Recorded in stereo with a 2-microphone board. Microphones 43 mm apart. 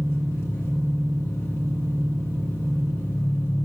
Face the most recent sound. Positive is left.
turn(degrees=75)  # may be behind; listen again after turning